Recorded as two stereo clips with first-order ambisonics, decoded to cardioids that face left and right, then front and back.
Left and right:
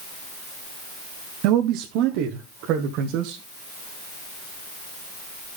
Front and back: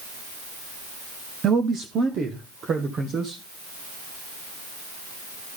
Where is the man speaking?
115° right, 0.9 m; by 3.4 s 120° right, 2.5 m.